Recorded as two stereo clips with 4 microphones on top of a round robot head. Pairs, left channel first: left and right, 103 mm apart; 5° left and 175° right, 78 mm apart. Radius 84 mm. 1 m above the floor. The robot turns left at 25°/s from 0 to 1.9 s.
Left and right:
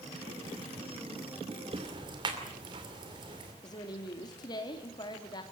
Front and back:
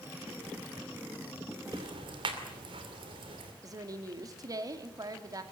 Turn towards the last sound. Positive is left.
turn(degrees=145)